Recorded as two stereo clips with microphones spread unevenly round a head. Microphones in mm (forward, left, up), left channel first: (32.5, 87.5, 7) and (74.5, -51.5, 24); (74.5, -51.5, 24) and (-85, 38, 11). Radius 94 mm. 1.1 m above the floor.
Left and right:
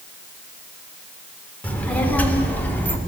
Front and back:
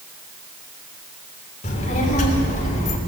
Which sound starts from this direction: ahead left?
A child speaking, at 1.6 s.